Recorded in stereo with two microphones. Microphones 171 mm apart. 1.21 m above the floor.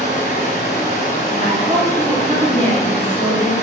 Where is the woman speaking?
30° right (ahead or behind), 1.0 m.